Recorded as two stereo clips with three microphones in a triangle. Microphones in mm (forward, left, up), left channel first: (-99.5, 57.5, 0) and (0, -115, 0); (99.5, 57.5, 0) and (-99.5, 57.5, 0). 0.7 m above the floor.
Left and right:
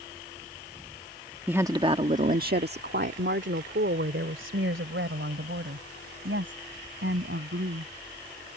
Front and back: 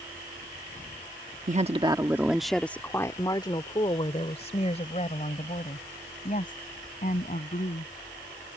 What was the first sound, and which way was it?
A woman speaking, 140° right.